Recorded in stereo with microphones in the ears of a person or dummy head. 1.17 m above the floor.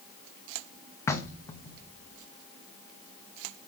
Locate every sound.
1.1 s knocking: 15° left (ahead or behind), 0.8 m